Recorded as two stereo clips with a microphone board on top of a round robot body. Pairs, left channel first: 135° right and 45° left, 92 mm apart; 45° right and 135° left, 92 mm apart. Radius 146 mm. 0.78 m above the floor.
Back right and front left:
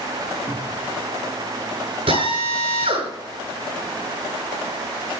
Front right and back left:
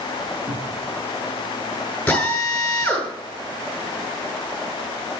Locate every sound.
0.5 s a cupboard door: 120° left, 5 m
2.1 s a drill: 30° left, 7.5 m